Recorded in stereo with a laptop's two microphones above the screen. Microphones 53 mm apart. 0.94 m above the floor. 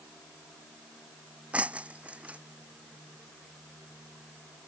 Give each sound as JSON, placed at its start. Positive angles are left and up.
{"t": 1.5, "sound": "breaking glass", "side_deg": -25}